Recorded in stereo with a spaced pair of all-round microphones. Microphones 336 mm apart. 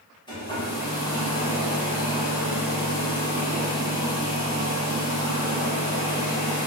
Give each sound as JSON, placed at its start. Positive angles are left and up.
{"t": 0.3, "sound": "a hair dryer", "side_deg": 15, "distance_m": 1.3}